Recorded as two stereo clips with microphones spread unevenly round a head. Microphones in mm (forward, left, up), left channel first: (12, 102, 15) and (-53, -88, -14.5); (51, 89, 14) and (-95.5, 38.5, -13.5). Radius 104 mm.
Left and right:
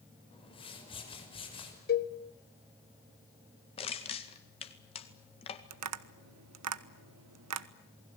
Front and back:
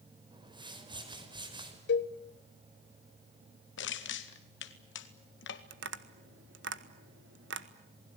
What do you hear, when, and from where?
0.3 s a whoosh: 135° left, 6 m
1.9 s a cowbell: 20° left, 1.5 m
3.8 s crushing: 5° left, 2.0 m
5.7 s tapping: 120° right, 1.3 m